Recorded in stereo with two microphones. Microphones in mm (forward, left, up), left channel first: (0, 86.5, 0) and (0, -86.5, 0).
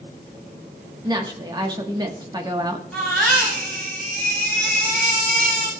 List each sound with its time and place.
1.0 s a woman speaking: 25° right (ahead or behind), 1.2 m
2.9 s a baby crying: 5° left (ahead or behind), 5.5 m